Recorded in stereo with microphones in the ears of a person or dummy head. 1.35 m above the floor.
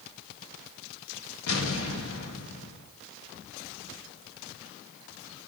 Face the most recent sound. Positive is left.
turn(degrees=80)